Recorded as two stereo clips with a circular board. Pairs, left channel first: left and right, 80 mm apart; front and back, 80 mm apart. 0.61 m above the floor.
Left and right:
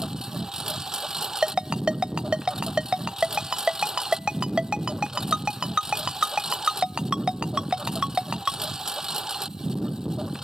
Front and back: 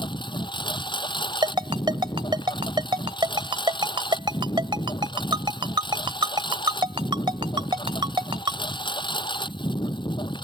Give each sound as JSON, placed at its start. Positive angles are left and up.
{"t": 0.0, "sound": "a lawn mower", "azimuth_deg": -5}
{"t": 1.4, "sound": "a ringtone", "azimuth_deg": -170}